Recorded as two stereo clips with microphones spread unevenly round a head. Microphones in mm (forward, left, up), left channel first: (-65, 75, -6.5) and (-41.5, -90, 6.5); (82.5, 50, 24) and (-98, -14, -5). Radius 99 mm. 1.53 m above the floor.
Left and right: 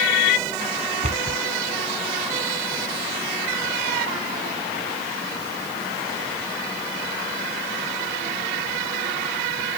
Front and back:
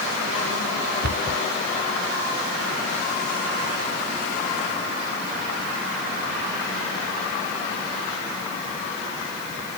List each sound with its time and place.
1.0 s a cupboard door: 120° right